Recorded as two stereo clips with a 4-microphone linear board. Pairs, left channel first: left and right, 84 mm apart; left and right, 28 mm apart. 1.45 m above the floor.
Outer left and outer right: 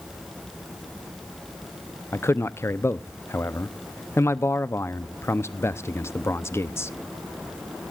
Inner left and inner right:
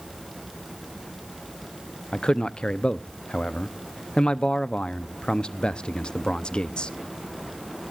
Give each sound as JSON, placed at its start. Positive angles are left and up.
{"t": 2.1, "sound": "a man speaking", "side_deg": 35, "distance_m": 0.7}